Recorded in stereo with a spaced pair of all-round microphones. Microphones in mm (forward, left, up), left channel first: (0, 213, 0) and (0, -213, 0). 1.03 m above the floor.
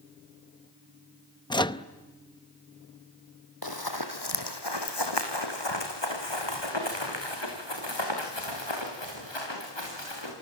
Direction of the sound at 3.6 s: 55° left (ahead or behind).